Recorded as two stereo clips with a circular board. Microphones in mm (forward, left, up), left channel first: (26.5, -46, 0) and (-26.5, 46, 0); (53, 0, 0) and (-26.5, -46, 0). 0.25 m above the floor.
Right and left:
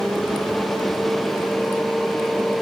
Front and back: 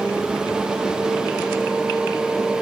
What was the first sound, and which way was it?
Only background noise.